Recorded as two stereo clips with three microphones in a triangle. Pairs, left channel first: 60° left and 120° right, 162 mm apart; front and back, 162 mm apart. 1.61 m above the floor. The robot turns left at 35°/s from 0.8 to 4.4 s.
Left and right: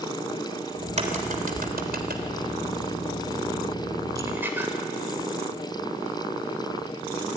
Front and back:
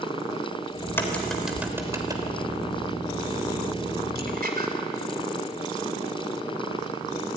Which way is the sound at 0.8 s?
70° right.